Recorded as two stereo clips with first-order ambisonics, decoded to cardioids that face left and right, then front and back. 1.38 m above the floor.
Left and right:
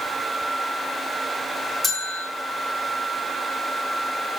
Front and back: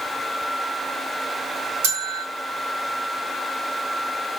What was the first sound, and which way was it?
A bell, straight behind.